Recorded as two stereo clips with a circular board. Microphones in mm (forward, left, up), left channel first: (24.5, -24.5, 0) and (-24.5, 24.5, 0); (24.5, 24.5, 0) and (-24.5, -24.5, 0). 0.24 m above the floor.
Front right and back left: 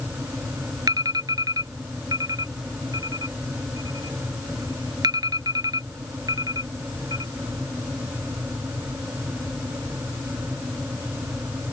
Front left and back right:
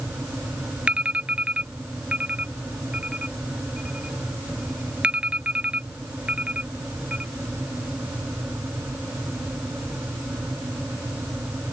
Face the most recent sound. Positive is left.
turn(degrees=150)